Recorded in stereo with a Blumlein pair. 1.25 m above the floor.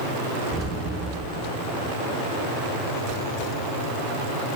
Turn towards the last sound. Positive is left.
turn(degrees=-20)